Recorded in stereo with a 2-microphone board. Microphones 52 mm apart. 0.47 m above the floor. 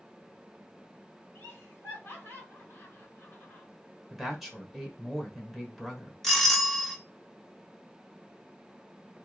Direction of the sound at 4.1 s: 5° right (ahead or behind).